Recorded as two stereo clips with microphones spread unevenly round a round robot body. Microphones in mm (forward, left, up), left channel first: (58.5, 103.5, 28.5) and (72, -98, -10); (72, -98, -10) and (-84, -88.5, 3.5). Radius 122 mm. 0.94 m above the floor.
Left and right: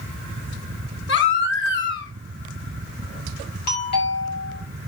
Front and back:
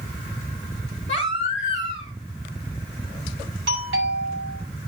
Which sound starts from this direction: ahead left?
A baby crying, at 1.1 s.